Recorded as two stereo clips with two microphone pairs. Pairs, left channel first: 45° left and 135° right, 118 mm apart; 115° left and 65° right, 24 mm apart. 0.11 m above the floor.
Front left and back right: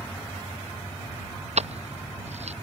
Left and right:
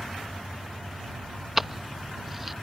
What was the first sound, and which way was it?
Keys jangling, 145° right.